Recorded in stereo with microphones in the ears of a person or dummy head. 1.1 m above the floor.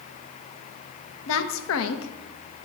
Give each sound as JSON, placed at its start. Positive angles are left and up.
{"t": 1.3, "sound": "a woman speaking", "side_deg": 70, "distance_m": 0.8}